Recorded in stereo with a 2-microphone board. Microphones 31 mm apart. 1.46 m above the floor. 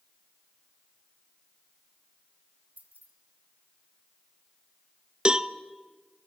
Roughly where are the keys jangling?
Right.